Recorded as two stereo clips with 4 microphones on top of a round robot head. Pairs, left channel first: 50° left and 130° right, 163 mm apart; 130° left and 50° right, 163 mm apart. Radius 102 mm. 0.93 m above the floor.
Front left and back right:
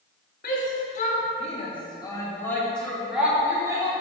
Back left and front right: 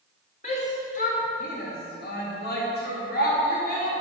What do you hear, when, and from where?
0.4 s a shout: 80° left, 2.5 m; by 4.0 s 165° left, 2.5 m